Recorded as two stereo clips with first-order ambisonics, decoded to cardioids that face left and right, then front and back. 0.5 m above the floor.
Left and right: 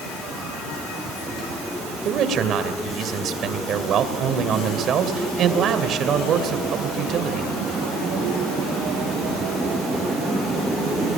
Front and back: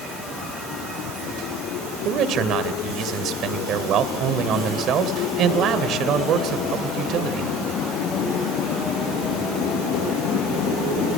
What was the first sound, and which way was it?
A man speaking, 135° right.